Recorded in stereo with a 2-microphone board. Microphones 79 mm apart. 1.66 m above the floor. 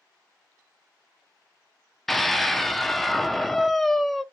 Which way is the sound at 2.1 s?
Centre (ahead or behind).